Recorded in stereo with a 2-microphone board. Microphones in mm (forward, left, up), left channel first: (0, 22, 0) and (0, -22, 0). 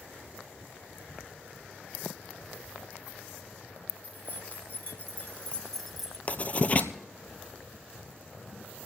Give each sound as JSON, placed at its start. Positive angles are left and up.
{"t": 4.0, "sound": "keys jangling", "side_deg": 45, "distance_m": 2.5}
{"t": 6.3, "sound": "writing", "side_deg": 35, "distance_m": 1.1}